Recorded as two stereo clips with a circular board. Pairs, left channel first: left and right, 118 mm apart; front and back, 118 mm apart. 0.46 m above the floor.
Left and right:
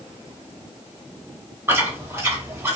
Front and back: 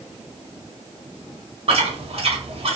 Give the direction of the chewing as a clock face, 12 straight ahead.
5 o'clock.